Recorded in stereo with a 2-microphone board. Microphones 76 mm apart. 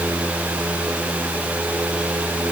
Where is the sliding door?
No sliding door in this recording.